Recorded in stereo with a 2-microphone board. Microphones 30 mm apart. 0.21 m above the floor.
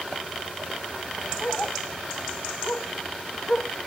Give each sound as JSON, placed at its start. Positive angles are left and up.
{"t": 1.4, "sound": "a dog barking", "side_deg": 45}